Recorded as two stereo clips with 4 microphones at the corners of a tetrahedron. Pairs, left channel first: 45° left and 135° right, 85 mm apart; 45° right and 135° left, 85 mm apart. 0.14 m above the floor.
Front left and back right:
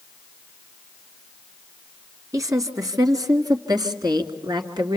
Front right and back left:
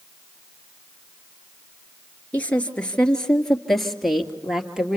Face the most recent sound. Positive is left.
turn(degrees=-145)